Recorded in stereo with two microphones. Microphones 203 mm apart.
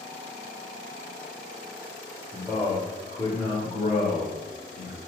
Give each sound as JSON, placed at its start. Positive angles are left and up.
{"t": 2.3, "sound": "a man speaking", "side_deg": 0, "distance_m": 1.1}